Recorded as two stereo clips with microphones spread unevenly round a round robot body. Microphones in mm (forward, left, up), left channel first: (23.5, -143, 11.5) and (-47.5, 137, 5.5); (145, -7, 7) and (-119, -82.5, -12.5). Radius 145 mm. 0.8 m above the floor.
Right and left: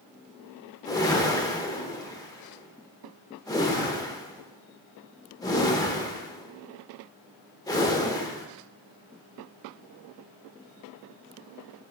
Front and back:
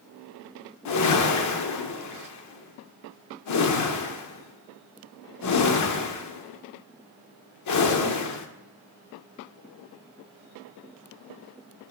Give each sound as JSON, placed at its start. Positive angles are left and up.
{"t": 0.8, "sound": "a whoosh", "azimuth_deg": 0, "distance_m": 0.7}